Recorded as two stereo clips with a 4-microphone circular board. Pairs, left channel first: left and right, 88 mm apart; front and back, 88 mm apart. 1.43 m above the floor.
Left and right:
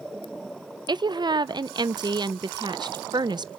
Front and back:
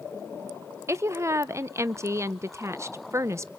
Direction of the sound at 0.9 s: 125° right.